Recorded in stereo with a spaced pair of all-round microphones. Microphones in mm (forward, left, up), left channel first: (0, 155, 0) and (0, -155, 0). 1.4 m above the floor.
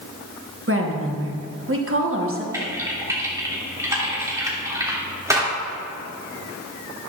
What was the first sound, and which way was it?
A woman speaking, 40° right (ahead or behind).